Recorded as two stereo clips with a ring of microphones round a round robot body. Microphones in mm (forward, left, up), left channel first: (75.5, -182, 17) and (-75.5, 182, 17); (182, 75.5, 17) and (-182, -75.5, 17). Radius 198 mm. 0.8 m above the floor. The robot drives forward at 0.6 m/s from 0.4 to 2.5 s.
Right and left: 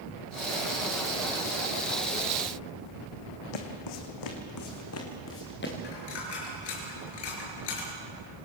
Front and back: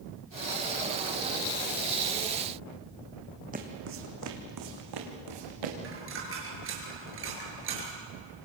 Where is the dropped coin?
100° right, 7 m.